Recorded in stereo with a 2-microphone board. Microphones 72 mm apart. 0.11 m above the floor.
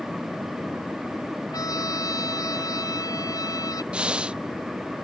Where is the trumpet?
55° left (ahead or behind).